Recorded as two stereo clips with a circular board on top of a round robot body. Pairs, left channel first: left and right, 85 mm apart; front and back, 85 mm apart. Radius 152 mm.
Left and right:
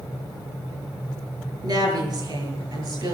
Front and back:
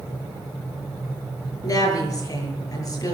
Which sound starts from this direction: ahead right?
A woman speaking, at 1.6 s.